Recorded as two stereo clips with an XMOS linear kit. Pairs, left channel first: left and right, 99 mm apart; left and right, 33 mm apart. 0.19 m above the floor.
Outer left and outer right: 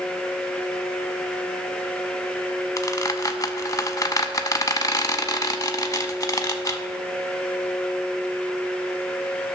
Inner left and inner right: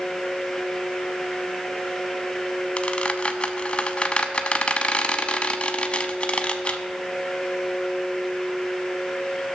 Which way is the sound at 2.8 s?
35° left (ahead or behind).